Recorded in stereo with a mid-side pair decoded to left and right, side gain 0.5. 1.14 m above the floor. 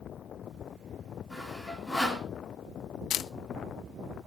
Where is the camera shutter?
60° left, 0.5 m.